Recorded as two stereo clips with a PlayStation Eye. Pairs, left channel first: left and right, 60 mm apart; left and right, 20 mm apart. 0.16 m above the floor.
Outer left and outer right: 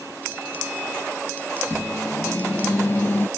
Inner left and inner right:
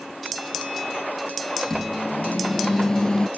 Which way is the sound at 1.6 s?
35° left (ahead or behind).